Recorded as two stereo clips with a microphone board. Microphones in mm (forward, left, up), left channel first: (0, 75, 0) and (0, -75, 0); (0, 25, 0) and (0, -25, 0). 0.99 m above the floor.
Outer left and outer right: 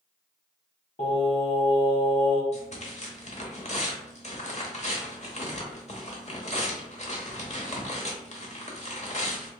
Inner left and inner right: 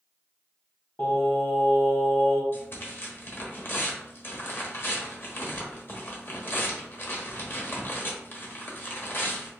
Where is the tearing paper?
50° left (ahead or behind), 0.9 m.